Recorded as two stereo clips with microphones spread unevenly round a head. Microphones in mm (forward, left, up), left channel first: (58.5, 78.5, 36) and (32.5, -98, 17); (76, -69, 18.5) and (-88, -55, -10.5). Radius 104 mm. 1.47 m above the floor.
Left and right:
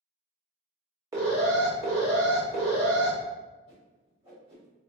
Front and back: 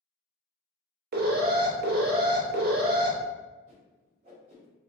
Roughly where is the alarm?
Behind.